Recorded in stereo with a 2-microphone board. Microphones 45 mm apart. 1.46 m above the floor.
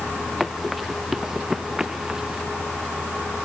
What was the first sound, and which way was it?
Running footsteps, 5° right (ahead or behind).